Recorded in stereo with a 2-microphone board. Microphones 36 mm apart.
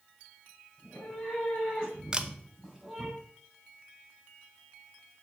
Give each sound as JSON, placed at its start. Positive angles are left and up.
{"t": 0.8, "sound": "a cat meowing", "side_deg": 35, "distance_m": 4.5}
{"t": 2.1, "sound": "a camera shutter", "side_deg": -20, "distance_m": 0.6}